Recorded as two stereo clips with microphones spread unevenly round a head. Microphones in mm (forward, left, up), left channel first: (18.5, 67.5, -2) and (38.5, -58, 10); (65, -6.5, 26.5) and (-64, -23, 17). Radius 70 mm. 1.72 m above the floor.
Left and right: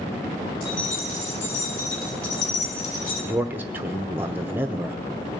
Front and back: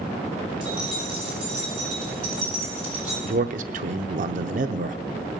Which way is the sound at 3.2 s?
150° right.